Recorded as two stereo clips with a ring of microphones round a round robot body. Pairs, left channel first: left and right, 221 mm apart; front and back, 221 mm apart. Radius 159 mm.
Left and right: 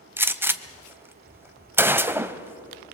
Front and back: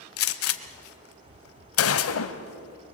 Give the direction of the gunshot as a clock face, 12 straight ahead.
12 o'clock.